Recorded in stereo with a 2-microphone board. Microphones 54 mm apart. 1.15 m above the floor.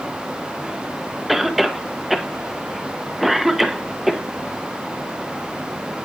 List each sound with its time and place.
1.3 s a cough: centre (ahead or behind), 1.1 m